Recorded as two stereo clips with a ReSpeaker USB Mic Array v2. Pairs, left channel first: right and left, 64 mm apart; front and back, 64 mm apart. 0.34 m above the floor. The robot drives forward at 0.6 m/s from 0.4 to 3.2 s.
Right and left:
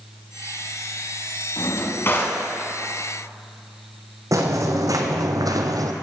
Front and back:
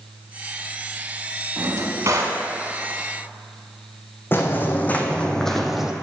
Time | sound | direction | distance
1.6 | a drawer | 135° right | 1.0 m
4.3 | footsteps | 55° left | 1.3 m